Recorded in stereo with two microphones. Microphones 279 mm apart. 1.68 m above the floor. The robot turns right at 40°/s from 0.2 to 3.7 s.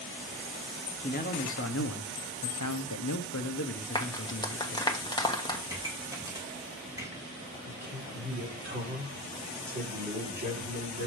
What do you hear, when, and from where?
1.0 s a man speaking: 25° left, 0.9 m; by 5.0 s 130° left, 0.9 m
4.0 s a clap: 15° left (ahead or behind), 1.3 m
5.7 s a pop: 10° right (ahead or behind), 2 m
7.7 s a man speaking: 35° right (ahead or behind), 4 m